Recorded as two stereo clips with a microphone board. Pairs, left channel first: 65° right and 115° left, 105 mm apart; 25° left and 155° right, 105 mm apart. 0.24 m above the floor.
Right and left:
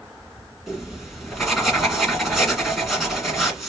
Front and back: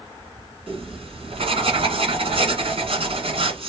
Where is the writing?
160° right, 1.6 m.